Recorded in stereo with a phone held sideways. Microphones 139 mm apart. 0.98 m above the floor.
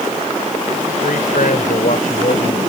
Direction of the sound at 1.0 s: 80° left.